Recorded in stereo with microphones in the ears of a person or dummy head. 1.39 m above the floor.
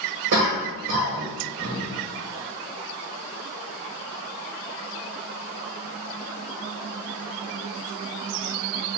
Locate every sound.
0.3 s a cough: 55° right (ahead or behind), 1.4 m